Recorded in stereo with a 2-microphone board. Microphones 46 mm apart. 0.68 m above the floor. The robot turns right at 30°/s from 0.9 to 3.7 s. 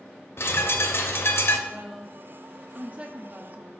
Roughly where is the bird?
Left.